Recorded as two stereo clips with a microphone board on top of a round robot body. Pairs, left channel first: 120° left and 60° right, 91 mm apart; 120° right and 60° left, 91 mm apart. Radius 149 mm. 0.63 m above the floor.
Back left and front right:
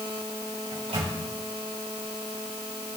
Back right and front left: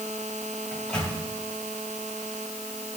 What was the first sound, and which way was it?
A microwave, 40° right.